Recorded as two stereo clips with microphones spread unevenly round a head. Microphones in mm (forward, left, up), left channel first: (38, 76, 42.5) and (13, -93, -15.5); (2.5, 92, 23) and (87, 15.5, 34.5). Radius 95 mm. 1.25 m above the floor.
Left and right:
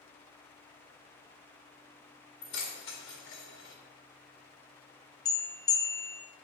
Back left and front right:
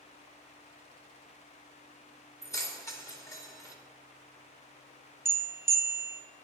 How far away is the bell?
About 0.8 m.